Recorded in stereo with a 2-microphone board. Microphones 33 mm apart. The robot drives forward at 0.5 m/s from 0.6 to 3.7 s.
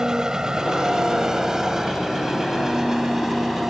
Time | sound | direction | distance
0.0 | an engine running | 20° right (ahead or behind) | ?